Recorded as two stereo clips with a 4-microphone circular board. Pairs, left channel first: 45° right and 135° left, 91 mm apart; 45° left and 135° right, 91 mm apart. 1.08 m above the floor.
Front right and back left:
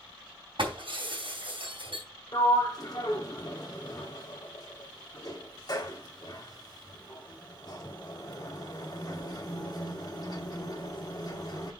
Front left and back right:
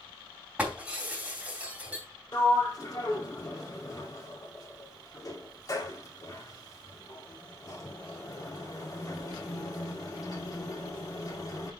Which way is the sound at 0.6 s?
150° left.